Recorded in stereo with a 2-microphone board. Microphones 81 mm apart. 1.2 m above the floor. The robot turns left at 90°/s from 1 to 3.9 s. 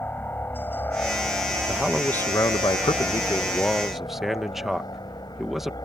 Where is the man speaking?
165° right; by 5.8 s 5° right.